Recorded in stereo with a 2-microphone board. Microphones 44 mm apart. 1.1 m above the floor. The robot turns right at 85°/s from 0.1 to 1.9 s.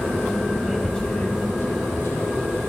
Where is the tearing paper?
5° right (ahead or behind), 6.5 m; by 2.7 s 80° left, 6.5 m.